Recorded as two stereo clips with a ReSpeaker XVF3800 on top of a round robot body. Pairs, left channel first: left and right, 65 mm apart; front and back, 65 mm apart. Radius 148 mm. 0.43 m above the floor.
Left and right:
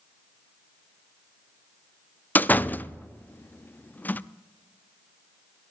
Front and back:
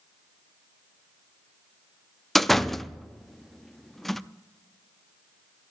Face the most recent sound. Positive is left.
turn(degrees=85)